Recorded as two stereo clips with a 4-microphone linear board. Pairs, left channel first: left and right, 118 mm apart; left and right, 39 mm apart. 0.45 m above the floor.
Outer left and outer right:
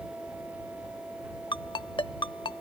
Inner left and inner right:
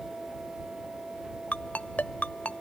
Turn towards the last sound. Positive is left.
turn(degrees=40)  # may be behind; listen again after turning